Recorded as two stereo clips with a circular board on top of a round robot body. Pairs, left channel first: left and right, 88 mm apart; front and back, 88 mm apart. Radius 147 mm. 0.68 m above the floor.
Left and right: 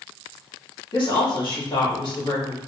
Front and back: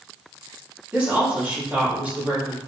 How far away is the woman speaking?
About 1.9 m.